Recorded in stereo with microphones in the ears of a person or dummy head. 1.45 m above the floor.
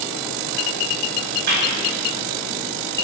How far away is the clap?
About 2.5 m.